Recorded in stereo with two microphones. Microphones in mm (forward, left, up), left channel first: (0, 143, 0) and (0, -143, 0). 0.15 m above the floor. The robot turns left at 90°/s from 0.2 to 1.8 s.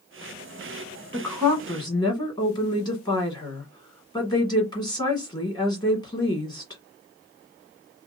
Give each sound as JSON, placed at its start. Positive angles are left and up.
{"t": 1.1, "sound": "a woman speaking", "side_deg": -5, "distance_m": 1.4}